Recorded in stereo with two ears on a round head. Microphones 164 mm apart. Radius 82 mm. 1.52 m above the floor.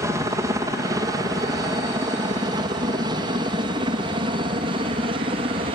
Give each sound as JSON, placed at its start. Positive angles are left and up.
{"t": 0.0, "sound": "a helicopter", "side_deg": -20}